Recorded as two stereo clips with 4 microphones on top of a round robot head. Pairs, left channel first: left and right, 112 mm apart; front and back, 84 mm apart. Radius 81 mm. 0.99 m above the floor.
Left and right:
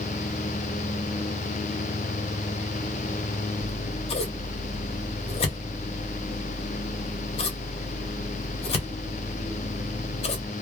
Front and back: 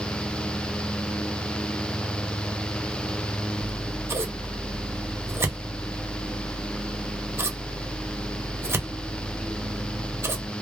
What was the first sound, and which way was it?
Scissors, 120° left.